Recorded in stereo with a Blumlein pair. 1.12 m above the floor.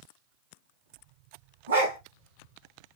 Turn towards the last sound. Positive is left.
turn(degrees=-65)